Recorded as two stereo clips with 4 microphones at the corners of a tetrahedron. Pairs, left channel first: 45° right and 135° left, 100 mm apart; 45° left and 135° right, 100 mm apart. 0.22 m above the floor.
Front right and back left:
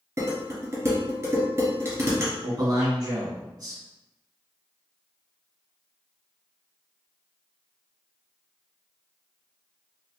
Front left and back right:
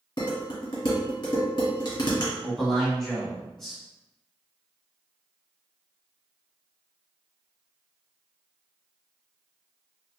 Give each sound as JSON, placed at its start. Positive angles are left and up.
{"t": 0.2, "sound": "dishes clattering", "azimuth_deg": 75, "distance_m": 1.9}
{"t": 2.4, "sound": "a man speaking", "azimuth_deg": 130, "distance_m": 1.5}